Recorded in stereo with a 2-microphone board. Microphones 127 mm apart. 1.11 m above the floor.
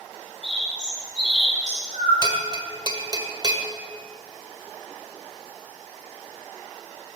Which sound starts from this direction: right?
A bell, at 2.2 s.